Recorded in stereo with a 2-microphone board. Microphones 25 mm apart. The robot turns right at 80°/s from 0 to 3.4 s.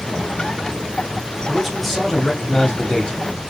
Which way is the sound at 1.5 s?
5° right (ahead or behind).